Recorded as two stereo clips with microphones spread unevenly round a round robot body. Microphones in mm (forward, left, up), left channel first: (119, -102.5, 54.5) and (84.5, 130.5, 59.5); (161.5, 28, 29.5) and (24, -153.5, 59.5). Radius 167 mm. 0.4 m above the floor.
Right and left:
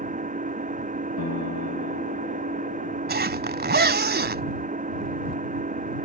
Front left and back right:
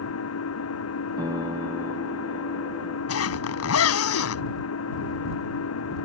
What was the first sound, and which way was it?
An engine running, 40° left.